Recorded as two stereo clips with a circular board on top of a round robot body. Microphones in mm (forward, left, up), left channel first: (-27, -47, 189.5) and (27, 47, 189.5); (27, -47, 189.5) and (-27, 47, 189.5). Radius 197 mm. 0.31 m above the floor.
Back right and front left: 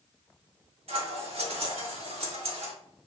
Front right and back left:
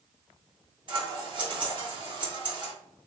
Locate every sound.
0.9 s scissors: 80° left, 1.7 m